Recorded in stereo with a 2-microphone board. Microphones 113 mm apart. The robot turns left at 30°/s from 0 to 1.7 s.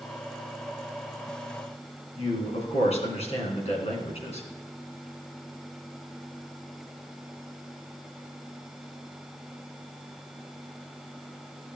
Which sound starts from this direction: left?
A man speaking, at 2.2 s.